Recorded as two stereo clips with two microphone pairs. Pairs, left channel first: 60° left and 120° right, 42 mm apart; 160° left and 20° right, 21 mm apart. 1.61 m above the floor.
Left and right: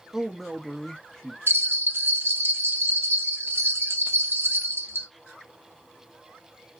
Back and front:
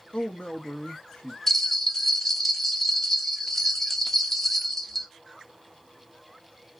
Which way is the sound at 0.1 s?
160° left.